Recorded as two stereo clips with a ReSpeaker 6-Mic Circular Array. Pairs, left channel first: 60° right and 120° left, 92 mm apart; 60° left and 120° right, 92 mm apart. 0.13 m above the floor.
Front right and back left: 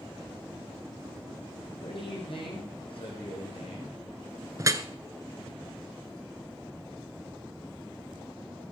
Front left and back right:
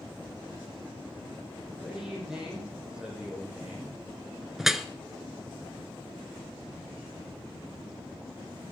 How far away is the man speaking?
About 5.5 m.